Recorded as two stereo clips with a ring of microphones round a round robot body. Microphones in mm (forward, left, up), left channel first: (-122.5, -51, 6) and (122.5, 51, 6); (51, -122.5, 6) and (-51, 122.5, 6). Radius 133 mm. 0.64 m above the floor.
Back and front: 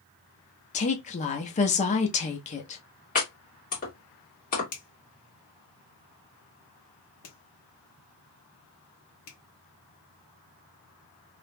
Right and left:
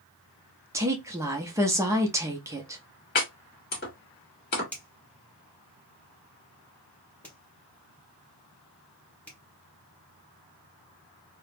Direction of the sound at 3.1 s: 110° right.